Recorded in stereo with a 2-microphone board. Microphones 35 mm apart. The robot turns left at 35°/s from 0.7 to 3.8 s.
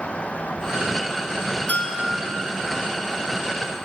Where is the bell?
45° left (ahead or behind), 4.5 m; by 2.3 s 25° left (ahead or behind), 4.5 m.